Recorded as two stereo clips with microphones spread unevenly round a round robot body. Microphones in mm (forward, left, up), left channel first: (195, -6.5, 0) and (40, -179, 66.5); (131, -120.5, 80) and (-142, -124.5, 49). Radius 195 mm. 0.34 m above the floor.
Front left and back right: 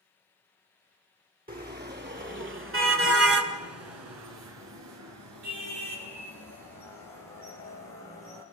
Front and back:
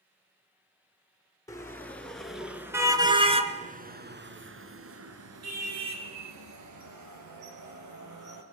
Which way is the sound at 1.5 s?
80° right.